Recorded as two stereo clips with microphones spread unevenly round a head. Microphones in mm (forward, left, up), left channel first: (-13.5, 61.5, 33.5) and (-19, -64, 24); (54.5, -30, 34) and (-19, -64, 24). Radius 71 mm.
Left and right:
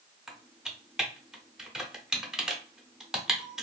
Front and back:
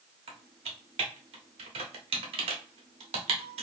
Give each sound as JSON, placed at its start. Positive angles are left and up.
{"t": 0.3, "sound": "typing on a keyboard", "azimuth_deg": 180, "distance_m": 0.8}